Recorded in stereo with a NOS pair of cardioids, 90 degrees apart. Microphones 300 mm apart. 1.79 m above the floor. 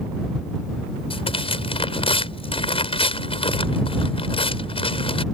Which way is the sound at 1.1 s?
20° left.